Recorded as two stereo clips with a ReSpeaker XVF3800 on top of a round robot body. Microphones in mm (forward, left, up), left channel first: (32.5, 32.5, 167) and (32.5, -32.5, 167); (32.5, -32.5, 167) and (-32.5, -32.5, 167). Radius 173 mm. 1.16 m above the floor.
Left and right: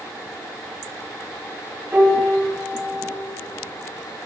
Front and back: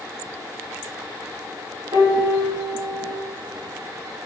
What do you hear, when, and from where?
1.9 s a piano: 165° right, 3 m